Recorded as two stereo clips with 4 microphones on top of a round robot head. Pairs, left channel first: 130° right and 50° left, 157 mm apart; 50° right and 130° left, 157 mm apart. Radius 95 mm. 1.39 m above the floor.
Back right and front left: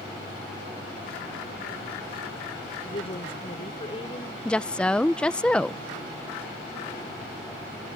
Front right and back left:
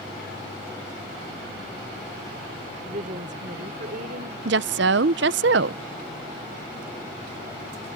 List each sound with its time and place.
2.9 s a woman speaking: 175° left; by 4.3 s 165° left
4.5 s a woman speaking: 145° left